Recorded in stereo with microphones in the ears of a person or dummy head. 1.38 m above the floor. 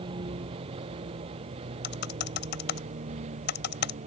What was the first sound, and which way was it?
A vehicle, 30° right (ahead or behind).